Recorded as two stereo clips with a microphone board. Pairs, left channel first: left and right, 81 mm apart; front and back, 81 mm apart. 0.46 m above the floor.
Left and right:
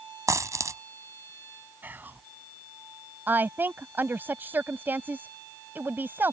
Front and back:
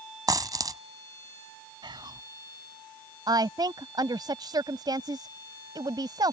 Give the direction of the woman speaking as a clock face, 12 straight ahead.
5 o'clock.